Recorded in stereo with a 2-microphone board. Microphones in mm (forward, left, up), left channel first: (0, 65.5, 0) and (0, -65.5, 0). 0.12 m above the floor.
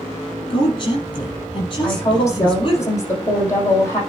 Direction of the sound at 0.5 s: 35° left (ahead or behind).